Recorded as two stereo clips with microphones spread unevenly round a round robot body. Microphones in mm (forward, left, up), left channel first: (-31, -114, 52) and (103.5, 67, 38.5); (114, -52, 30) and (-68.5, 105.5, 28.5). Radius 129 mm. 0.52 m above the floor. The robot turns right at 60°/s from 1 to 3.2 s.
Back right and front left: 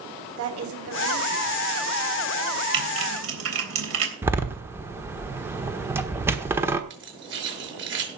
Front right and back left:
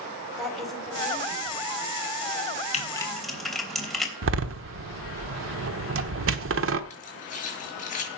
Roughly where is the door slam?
Behind left.